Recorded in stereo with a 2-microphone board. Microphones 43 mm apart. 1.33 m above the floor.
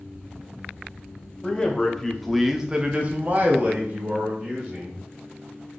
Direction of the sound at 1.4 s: 20° left (ahead or behind).